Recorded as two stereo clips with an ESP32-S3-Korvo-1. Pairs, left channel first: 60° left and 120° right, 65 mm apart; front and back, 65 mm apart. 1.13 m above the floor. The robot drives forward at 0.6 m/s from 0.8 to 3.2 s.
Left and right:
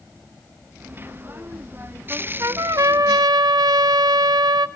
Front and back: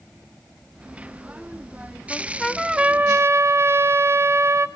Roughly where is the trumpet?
Ahead right.